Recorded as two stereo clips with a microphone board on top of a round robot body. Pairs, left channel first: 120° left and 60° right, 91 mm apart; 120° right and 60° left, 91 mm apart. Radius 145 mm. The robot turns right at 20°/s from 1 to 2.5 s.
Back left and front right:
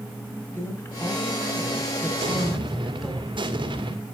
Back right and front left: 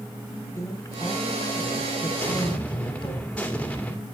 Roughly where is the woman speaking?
Behind.